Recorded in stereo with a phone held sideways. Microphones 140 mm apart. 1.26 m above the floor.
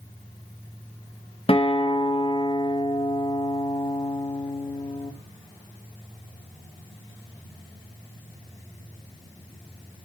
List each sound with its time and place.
1.5 s a guitar: 40° left (ahead or behind), 0.9 m